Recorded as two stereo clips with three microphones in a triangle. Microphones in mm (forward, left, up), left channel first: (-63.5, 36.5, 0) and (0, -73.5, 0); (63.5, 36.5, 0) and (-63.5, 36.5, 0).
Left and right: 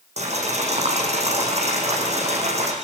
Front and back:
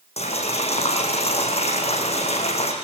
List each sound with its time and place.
0.2 s boiling: 35° right, 5.5 m